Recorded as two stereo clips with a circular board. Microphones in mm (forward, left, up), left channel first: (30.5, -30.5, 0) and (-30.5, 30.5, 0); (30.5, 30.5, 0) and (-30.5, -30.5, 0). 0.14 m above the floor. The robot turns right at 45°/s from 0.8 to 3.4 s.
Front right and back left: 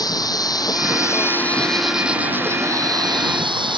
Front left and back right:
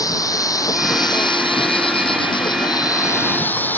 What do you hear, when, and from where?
0.0 s an insect: 5° right; by 3.8 s 115° left